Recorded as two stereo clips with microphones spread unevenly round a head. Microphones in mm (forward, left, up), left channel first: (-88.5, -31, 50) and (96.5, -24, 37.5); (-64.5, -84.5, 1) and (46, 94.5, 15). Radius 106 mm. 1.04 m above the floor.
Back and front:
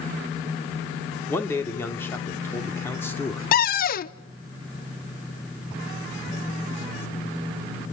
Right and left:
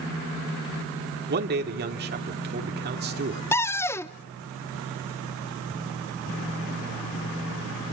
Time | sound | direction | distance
1.3 | a man speaking | 100° left | 2.5 m
3.5 | a cupboard door | 165° left | 0.7 m